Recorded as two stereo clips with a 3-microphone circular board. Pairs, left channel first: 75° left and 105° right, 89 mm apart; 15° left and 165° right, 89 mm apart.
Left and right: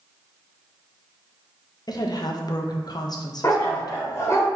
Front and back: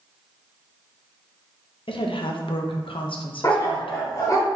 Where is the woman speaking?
30° left, 0.7 m.